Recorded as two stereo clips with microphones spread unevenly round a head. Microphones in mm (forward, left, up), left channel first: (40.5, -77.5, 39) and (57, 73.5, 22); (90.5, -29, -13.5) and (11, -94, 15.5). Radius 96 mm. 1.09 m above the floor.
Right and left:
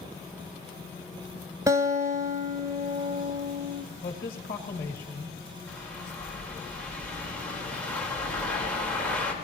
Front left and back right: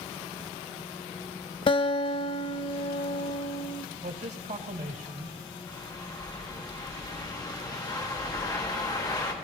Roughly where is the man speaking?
Behind right.